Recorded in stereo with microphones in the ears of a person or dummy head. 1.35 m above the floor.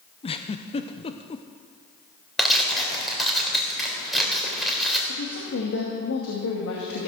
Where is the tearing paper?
5° right (ahead or behind), 3.5 m.